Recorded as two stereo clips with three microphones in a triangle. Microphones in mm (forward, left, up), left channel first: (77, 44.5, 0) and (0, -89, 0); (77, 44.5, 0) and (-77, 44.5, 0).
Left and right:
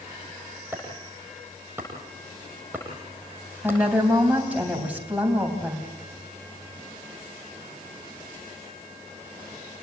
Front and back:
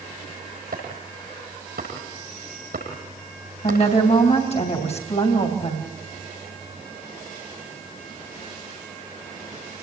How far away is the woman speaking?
About 3.5 m.